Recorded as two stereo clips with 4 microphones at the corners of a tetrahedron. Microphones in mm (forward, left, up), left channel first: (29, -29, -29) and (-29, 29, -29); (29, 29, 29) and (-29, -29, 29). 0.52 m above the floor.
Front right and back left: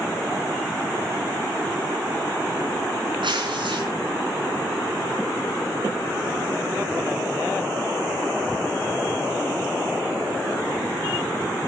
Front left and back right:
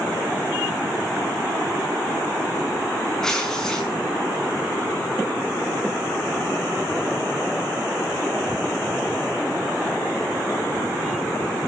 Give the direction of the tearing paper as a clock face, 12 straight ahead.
8 o'clock.